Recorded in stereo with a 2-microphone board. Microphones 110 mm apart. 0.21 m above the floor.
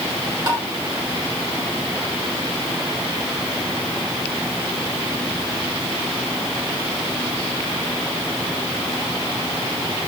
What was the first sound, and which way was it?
Tapping, 35° right (ahead or behind).